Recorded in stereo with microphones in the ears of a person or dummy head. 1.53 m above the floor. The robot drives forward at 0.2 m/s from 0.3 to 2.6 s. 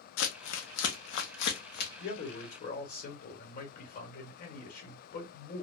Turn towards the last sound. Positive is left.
turn(degrees=45)  # may be behind; listen again after turning